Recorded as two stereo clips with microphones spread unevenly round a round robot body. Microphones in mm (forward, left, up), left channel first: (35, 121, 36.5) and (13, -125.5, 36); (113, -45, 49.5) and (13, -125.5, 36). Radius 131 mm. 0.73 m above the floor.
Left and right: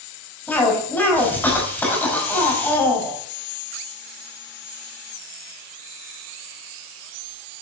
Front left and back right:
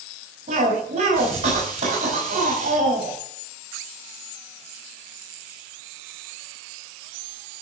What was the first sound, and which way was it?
A cough, 170° left.